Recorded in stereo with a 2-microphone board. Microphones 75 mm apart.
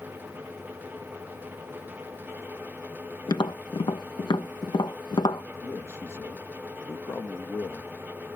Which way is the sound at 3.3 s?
85° left.